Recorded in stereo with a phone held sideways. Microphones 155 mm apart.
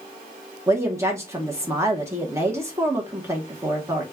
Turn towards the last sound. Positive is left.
turn(degrees=-20)  # may be behind; listen again after turning